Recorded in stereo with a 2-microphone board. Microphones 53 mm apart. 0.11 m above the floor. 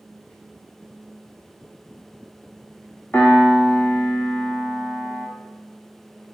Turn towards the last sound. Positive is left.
turn(degrees=40)  # may be behind; listen again after turning